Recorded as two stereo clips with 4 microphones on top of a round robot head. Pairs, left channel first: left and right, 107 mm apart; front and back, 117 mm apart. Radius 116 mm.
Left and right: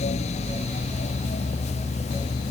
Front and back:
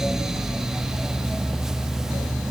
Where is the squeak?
No squeak in this recording.